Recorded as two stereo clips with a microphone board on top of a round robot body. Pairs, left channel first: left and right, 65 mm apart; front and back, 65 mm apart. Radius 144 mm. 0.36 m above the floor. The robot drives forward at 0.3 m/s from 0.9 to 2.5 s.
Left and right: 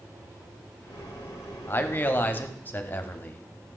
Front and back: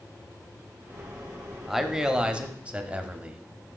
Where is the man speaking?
95° left, 0.9 m; by 3.5 s 125° left, 1.0 m.